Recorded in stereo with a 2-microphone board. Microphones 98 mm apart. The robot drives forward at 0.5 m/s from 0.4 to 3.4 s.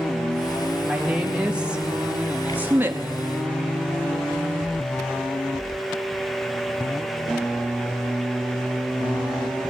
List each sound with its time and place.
0.8 s a woman speaking: 10° right (ahead or behind), 1.4 m; by 3.1 s 20° right (ahead or behind), 0.6 m